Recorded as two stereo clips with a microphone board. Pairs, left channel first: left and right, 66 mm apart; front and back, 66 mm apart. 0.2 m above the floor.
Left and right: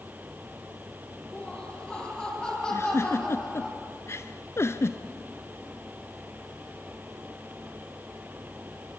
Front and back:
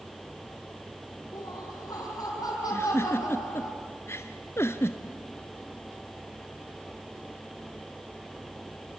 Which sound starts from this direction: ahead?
Laughter, at 1.3 s.